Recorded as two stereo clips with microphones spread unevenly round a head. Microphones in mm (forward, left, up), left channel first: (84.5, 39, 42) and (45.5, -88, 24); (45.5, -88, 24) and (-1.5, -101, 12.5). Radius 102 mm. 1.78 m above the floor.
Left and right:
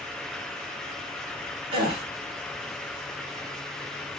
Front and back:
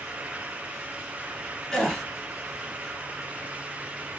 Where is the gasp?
55° right, 1.4 m.